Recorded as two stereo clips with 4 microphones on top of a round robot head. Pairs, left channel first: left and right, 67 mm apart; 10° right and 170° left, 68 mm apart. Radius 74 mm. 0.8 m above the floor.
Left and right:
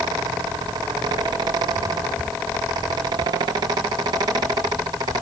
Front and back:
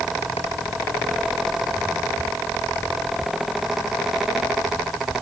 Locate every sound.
Only background noise.